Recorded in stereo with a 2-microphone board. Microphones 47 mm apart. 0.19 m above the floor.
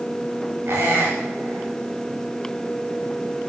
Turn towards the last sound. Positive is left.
turn(degrees=-55)  # may be behind; listen again after turning